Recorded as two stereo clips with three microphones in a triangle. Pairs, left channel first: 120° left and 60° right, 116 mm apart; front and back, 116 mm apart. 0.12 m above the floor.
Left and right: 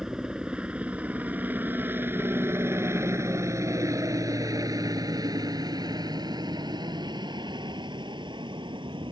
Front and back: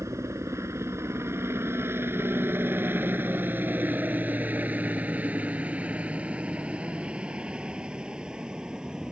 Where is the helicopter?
140° right; by 9.1 s 95° right.